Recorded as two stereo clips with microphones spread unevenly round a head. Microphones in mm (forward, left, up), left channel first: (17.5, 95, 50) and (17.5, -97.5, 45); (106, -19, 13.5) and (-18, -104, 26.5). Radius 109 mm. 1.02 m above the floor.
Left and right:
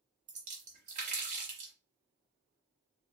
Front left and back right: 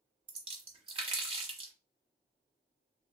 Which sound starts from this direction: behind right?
A splash, at 0.3 s.